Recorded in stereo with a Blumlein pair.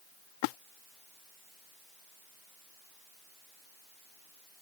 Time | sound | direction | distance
0.4 | a splash | 45° left | ?